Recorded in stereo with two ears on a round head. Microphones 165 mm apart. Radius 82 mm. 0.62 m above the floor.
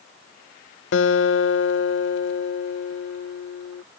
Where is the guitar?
70° left (ahead or behind).